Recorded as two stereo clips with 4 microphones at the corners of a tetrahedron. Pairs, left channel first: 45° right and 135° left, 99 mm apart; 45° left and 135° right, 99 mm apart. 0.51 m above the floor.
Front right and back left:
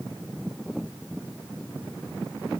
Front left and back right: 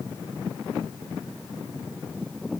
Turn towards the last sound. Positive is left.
No sound to turn to.